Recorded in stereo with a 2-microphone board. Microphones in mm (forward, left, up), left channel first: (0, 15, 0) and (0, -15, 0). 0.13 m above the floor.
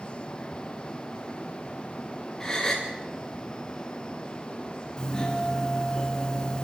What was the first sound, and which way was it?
A gasp, 15° left (ahead or behind).